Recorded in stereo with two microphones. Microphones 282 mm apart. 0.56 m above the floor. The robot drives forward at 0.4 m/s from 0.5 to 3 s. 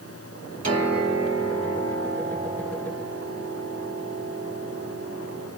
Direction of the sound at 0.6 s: 55° right (ahead or behind).